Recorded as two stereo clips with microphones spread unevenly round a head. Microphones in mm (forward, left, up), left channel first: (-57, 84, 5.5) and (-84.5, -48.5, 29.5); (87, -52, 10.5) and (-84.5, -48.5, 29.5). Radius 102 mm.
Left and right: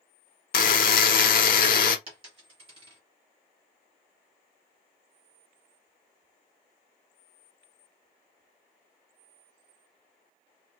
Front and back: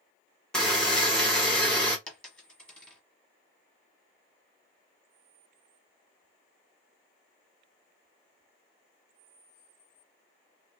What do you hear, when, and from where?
0.5 s a buzzer: 85° left, 0.6 m
2.1 s a dropped coin: 90° right, 1.2 m